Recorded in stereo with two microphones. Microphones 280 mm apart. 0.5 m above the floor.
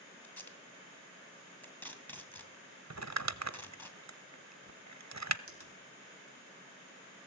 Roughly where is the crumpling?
Right.